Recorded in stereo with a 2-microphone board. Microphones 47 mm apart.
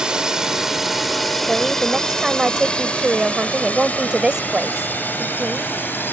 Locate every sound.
0.0 s a drone: 15° right (ahead or behind); by 6.1 s 45° left (ahead or behind)
1.5 s a woman speaking: 15° right (ahead or behind)